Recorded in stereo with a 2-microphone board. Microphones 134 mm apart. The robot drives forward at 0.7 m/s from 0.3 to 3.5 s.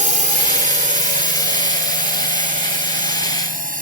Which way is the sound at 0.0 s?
65° right (ahead or behind).